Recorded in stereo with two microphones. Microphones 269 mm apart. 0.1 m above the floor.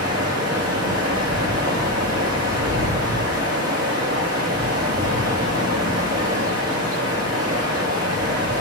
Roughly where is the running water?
Right.